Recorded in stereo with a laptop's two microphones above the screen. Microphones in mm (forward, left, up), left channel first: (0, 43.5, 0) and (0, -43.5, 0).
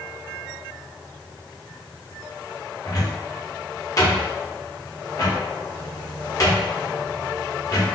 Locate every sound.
2.9 s a cupboard door: 40° left (ahead or behind), 0.9 m